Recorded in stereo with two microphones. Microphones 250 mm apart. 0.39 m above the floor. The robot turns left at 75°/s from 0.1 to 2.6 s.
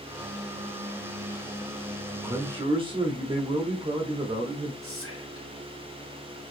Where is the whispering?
60° left (ahead or behind), 1.9 m.